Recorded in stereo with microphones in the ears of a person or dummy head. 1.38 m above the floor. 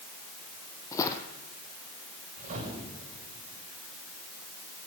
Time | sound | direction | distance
0.9 | footsteps | 15° left (ahead or behind) | 2.5 m
2.4 | a whoosh | 40° right (ahead or behind) | 7.5 m